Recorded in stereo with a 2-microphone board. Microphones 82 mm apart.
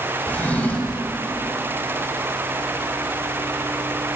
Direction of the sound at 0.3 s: 20° left (ahead or behind).